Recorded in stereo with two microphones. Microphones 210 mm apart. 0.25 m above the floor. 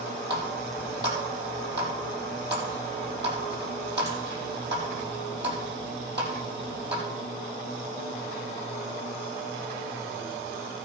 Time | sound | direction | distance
0.3 | a running tap | 55° right (ahead or behind) | 5 m